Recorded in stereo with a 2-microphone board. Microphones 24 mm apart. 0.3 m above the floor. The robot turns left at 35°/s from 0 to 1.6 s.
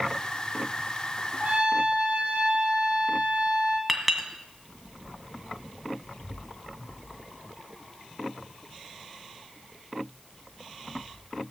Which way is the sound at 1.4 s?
50° right (ahead or behind).